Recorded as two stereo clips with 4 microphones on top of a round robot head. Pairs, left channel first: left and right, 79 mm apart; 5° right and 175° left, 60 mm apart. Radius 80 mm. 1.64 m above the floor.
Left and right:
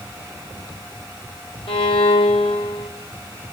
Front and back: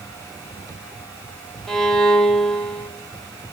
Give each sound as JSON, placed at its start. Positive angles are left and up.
{"t": 1.7, "sound": "a violin", "azimuth_deg": 80, "distance_m": 5.0}